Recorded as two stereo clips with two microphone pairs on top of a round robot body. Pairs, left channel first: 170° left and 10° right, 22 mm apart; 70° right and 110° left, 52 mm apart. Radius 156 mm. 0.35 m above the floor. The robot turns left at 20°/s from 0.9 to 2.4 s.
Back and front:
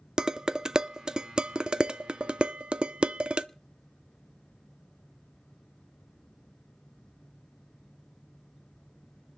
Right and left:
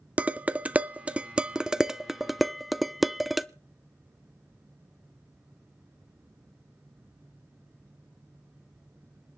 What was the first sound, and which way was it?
Dishes clattering, 45° left.